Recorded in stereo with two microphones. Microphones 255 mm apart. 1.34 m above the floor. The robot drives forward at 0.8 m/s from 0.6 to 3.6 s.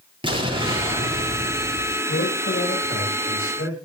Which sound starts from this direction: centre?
An explosion, at 0.2 s.